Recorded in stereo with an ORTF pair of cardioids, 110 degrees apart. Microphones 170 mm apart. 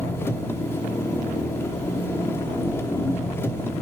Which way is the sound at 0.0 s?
15° left.